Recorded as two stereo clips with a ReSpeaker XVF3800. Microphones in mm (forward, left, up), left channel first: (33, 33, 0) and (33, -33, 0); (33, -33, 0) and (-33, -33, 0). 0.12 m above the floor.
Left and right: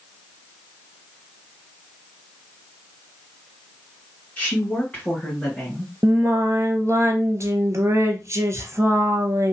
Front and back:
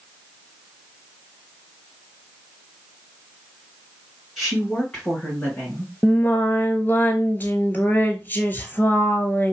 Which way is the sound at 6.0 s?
55° right.